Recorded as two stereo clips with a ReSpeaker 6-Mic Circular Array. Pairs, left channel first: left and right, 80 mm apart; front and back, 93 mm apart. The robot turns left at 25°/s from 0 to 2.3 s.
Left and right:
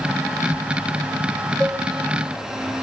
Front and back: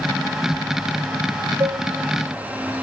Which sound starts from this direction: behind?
A cowbell, at 1.6 s.